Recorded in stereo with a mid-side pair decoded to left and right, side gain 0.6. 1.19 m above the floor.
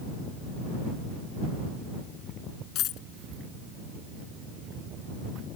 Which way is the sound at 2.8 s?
60° left.